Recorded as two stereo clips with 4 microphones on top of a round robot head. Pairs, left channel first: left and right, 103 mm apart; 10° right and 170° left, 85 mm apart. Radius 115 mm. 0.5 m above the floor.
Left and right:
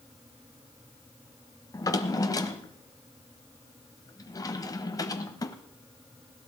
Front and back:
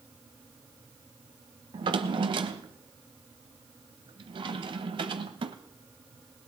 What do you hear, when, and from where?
1.7 s a drawer: 145° left, 1.0 m